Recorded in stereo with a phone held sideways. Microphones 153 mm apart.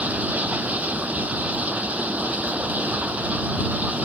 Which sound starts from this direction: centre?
Running water, at 0.0 s.